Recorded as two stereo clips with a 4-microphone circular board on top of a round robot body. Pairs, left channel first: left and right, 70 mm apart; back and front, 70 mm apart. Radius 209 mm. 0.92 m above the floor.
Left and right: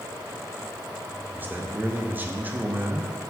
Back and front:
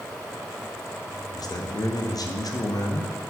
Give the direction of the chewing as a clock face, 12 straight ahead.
I don't hear chewing.